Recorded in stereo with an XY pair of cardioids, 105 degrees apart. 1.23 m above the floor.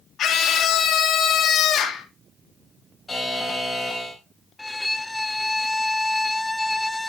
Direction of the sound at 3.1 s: 20° left.